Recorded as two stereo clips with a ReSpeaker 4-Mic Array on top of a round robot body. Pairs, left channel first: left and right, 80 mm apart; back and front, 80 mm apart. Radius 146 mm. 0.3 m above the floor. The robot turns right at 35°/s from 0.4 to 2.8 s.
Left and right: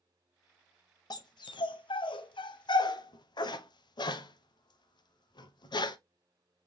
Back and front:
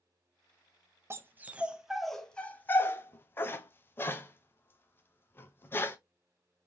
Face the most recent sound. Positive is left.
turn(degrees=115)